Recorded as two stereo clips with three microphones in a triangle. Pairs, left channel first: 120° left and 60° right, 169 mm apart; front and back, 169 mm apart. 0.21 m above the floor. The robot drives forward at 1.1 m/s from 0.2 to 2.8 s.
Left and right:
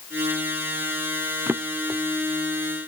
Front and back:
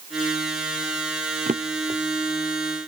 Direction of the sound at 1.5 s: 135° right.